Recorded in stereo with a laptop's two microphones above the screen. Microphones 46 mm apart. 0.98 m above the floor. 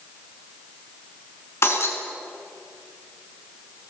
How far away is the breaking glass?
About 4.5 m.